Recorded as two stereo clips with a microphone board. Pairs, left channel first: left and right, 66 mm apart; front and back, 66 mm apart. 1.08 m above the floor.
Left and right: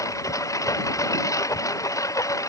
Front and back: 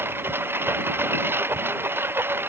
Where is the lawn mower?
125° left.